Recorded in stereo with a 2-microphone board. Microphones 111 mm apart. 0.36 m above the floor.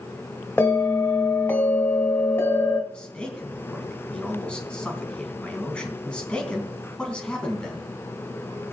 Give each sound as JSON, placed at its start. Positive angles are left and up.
{"t": 0.6, "sound": "a bell", "side_deg": 20, "distance_m": 1.7}
{"t": 2.9, "sound": "a man speaking", "side_deg": 10, "distance_m": 4.0}